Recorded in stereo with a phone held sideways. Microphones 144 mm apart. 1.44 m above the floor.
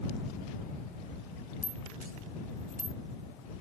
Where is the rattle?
75° right (ahead or behind).